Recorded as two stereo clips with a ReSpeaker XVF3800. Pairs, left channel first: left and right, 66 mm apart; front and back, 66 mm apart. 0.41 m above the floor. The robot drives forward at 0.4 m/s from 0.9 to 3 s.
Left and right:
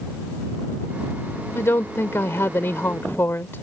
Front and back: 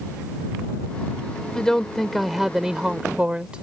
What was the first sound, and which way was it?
A woman speaking, 75° left.